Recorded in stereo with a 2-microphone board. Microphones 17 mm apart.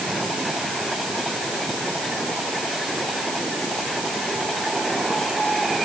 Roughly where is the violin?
No violin in this recording.